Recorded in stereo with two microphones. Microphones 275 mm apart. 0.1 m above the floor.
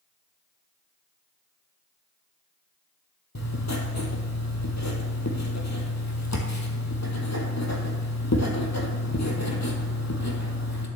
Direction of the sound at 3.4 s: 70° left (ahead or behind).